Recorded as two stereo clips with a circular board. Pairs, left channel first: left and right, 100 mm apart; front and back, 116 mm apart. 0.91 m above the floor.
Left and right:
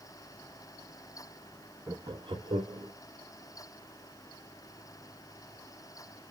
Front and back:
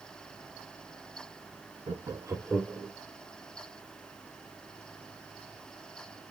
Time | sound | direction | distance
1.9 | laughter | 145° right | 0.8 m